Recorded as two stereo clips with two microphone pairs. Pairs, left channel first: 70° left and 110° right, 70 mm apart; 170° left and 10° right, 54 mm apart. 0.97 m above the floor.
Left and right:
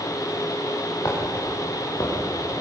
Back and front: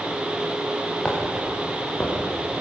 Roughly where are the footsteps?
Left.